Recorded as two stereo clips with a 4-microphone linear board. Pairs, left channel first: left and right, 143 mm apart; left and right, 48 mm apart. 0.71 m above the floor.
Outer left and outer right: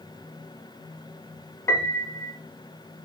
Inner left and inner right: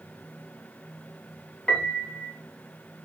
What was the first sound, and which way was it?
A piano, 20° left (ahead or behind).